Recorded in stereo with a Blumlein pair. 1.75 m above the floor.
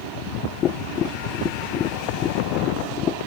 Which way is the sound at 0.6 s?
30° left.